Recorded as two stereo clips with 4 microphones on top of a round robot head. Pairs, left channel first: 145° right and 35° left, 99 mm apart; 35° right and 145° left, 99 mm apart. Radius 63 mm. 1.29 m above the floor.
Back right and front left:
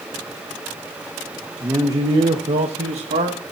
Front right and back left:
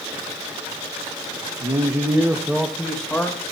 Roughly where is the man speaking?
Left.